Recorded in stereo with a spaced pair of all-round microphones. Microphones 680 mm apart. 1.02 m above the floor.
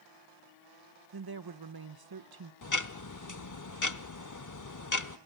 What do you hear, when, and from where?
1.1 s a woman speaking: 35° right (ahead or behind), 0.7 m
2.6 s ticking: 30° left (ahead or behind), 0.7 m